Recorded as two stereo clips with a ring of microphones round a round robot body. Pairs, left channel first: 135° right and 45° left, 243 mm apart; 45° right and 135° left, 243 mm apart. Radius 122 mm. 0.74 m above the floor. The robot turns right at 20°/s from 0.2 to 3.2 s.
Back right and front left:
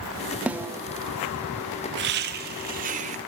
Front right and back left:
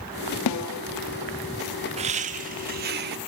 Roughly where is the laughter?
Left.